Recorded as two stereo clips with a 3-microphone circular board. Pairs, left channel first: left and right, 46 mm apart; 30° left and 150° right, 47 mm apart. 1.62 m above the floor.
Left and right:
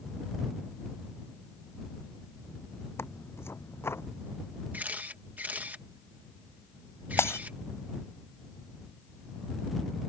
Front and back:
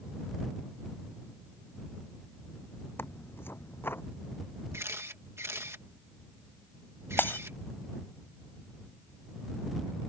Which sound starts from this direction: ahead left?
Tearing paper, at 3.0 s.